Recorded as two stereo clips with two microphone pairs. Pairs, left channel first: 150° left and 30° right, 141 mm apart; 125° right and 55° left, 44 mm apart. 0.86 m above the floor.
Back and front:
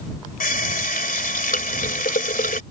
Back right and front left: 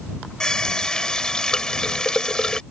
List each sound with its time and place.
0.4 s a running tap: 160° left